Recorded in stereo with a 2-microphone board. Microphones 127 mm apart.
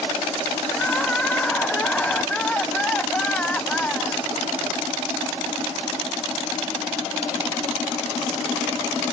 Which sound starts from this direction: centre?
Crying, at 0.7 s.